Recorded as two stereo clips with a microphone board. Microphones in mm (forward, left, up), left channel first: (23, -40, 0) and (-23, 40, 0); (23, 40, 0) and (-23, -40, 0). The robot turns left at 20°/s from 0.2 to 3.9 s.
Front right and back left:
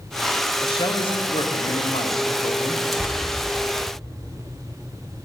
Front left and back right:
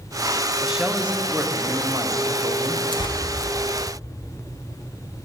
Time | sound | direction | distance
0.6 | a man speaking | 35° right | 0.8 m
2.9 | tearing paper | 30° left | 1.0 m